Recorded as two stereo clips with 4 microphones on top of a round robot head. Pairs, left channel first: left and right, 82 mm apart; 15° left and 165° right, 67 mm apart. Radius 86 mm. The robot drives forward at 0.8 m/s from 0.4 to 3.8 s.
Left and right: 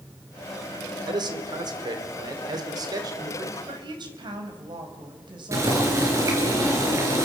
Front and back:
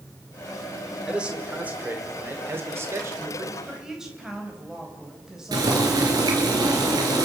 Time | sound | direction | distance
0.9 | a man speaking | 85° right | 3 m
3.7 | a woman speaking | 85° right | 4.5 m
5.5 | boiling | 145° right | 5 m